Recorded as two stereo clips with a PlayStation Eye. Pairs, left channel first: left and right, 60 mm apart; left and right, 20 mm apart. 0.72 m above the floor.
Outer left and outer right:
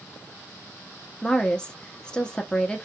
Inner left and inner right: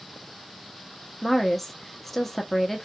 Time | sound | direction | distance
1.2 | a woman speaking | 15° left (ahead or behind) | 0.6 m